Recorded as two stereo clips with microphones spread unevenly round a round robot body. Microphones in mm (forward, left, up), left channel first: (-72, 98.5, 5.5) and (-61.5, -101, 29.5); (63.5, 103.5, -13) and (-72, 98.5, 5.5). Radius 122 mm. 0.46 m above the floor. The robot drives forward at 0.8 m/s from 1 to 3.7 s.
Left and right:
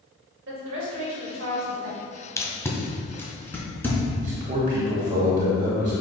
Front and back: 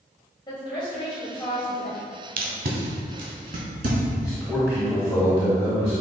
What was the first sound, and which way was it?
A woman speaking, 60° right.